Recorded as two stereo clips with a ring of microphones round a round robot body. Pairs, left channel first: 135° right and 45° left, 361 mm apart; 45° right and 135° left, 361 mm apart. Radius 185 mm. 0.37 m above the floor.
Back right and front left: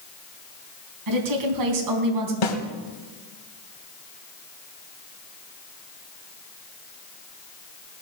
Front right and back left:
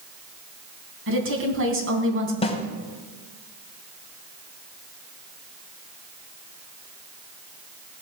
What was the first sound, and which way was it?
A woman speaking, 80° left.